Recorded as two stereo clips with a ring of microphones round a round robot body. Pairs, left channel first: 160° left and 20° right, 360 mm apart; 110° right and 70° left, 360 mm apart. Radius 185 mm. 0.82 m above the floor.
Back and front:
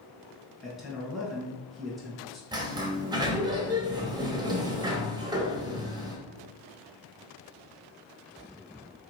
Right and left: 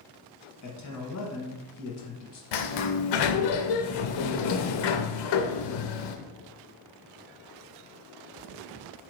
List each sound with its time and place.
0.6 s a man speaking: 110° right, 1.3 m
2.5 s a sliding door: 100° right, 0.6 m